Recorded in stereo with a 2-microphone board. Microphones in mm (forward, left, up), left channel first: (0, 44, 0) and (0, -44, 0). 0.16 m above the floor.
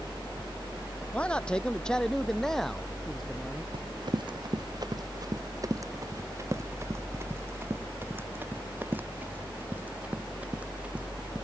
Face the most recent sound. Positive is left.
turn(degrees=-15)  # may be behind; listen again after turning